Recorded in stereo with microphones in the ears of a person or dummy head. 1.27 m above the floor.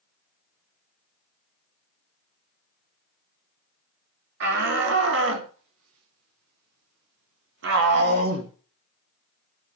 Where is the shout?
50° right (ahead or behind), 4.5 m; by 8.5 s 40° right (ahead or behind), 2 m.